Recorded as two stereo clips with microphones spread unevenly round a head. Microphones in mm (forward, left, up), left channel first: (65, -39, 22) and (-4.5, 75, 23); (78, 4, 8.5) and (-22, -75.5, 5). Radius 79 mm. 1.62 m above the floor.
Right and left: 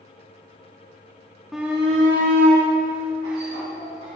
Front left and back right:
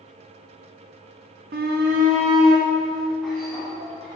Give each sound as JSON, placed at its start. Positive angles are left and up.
{"t": 1.5, "sound": "a shout", "azimuth_deg": -150, "distance_m": 0.9}